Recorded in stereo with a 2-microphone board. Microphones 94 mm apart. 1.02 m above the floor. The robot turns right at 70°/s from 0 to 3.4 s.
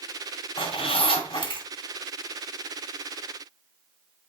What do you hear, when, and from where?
0.6 s a zipper: 55° left (ahead or behind), 2.5 m; by 1.7 s 45° left (ahead or behind), 2.5 m